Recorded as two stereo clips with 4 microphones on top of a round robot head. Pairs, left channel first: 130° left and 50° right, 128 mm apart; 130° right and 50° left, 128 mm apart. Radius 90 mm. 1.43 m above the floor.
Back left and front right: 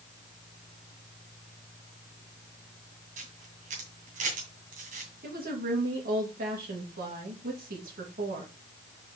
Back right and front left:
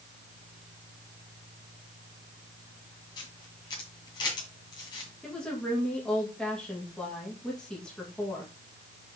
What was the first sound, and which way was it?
A camera shutter, 70° right.